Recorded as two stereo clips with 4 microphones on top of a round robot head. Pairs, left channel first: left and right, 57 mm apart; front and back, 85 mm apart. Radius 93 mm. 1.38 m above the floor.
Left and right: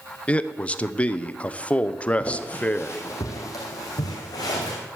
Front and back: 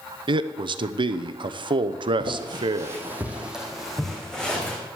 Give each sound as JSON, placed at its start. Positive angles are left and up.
{"t": 0.3, "sound": "a man speaking", "azimuth_deg": 160, "distance_m": 0.8}
{"t": 2.2, "sound": "footsteps", "azimuth_deg": 155, "distance_m": 2.0}